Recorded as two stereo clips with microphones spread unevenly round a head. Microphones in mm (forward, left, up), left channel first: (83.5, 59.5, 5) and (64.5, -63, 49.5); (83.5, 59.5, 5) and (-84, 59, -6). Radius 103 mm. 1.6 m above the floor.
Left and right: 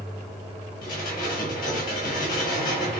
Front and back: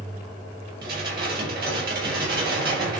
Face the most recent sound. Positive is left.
turn(degrees=150)